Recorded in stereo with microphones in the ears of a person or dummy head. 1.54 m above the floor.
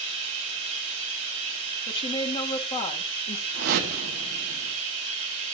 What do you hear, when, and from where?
0.0 s running water: 40° right (ahead or behind), 6.5 m
1.9 s a woman speaking: 20° left (ahead or behind), 1.6 m
3.5 s a whoosh: 50° right (ahead or behind), 1.5 m